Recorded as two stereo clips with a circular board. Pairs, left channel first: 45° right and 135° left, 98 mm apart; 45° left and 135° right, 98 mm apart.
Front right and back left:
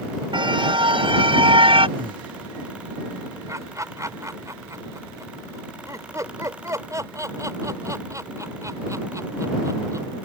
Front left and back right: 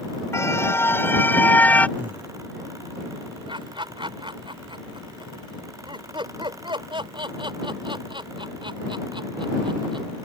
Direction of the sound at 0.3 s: 105° left.